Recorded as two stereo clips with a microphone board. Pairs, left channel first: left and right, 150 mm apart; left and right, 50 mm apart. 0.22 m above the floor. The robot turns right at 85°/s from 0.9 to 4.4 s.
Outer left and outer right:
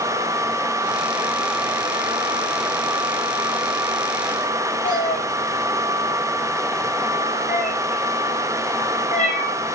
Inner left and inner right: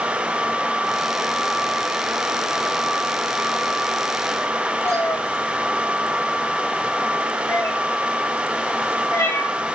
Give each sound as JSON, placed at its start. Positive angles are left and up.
{"t": 4.8, "sound": "a cat meowing", "side_deg": 55, "distance_m": 5.0}